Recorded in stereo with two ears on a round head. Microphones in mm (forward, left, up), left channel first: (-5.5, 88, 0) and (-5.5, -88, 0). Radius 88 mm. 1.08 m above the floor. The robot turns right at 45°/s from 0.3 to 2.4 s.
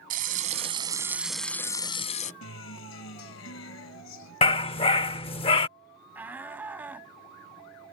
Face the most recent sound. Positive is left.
turn(degrees=-10)  # may be behind; listen again after turning